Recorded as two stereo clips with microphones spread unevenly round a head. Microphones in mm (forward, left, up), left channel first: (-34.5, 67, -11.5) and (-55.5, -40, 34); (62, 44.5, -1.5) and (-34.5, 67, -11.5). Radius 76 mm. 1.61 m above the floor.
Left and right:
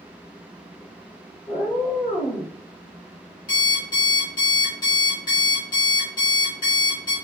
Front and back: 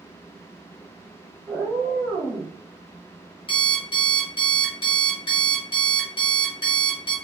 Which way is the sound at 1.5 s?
60° left.